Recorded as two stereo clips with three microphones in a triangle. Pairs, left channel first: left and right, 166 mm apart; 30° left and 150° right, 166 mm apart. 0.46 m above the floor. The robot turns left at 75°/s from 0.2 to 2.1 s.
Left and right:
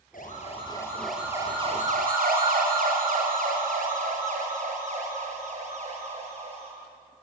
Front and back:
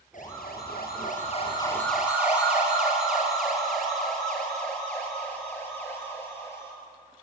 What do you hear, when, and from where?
0.1 s a siren: 65° left, 8 m; by 6.7 s 45° right, 8.5 m